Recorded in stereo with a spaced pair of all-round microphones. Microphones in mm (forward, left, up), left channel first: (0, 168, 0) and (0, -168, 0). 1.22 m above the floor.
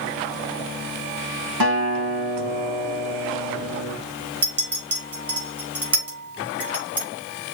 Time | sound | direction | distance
1.6 | a guitar | 80° right | 2 m
4.4 | a clink | 60° right (ahead or behind) | 5 m